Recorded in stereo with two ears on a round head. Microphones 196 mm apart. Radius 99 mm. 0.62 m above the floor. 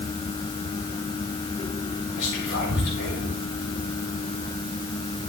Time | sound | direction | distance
2.2 | whispering | 55° left (ahead or behind) | 5 m